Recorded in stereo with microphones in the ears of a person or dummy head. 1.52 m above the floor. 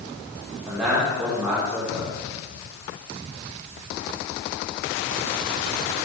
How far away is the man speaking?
About 4.5 m.